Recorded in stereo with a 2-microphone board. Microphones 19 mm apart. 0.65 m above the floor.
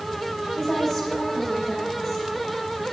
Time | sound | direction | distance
0.6 | a woman speaking | 5° right (ahead or behind) | 3.5 m